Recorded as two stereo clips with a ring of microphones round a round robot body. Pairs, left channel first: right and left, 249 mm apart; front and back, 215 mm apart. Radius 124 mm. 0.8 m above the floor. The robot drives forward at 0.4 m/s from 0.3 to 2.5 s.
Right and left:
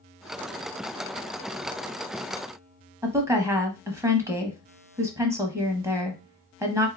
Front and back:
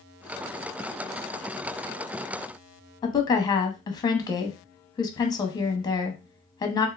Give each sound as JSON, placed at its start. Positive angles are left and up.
{"t": 3.0, "sound": "a woman speaking", "azimuth_deg": 30, "distance_m": 0.7}